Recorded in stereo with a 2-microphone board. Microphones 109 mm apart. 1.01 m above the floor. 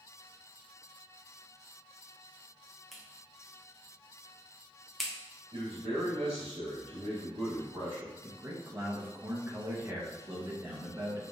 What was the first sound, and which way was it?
A clap, centre (ahead or behind).